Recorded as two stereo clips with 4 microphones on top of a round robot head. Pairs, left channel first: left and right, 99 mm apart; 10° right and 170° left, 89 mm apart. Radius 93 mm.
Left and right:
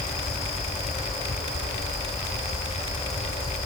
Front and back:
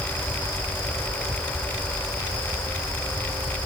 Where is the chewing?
I don't hear chewing.